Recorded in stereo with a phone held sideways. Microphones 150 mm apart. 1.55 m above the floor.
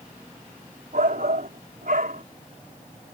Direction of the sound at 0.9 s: 70° right (ahead or behind).